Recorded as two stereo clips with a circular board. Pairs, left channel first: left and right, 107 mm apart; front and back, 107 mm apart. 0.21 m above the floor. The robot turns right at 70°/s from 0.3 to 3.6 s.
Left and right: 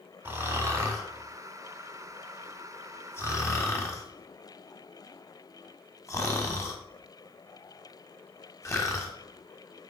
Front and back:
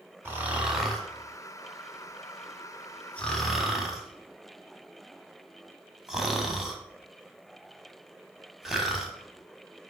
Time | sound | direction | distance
0.2 | snoring | 135° right | 1.2 m